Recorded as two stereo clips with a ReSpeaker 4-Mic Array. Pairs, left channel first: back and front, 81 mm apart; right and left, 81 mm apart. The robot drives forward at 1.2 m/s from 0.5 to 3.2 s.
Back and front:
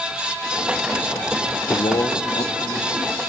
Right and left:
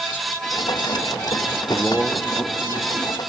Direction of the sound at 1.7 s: 155° right.